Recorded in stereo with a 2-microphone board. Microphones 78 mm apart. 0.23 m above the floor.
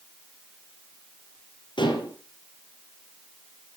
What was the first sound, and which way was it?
Dishes clattering, 75° left (ahead or behind).